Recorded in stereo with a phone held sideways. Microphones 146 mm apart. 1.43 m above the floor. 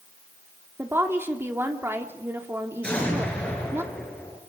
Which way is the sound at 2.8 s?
5° left (ahead or behind).